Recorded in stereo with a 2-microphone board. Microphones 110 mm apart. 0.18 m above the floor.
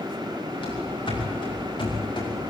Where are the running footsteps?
55° left (ahead or behind), 10 m; by 2.5 s 50° left (ahead or behind), 8.5 m.